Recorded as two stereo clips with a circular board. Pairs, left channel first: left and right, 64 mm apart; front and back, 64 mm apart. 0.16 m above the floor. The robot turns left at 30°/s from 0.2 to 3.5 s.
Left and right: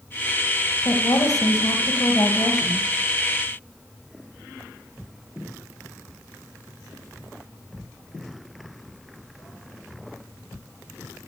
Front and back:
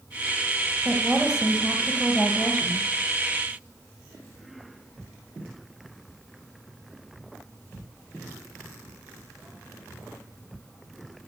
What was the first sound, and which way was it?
A woman speaking, 125° left.